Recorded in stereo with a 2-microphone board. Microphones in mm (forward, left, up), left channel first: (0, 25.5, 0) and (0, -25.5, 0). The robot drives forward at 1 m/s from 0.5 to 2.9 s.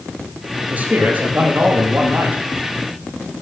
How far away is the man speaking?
About 8 m.